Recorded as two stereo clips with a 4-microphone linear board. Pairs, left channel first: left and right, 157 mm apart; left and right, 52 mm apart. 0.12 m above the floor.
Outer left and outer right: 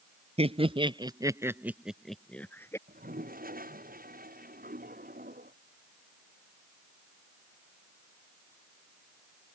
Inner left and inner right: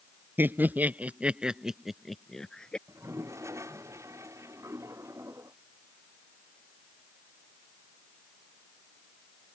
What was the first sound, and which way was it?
Laughter, 45° right (ahead or behind).